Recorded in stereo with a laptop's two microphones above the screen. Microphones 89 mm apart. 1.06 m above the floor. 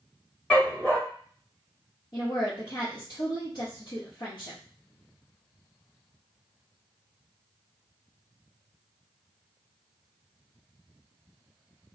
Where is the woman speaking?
65° left (ahead or behind), 1.3 m.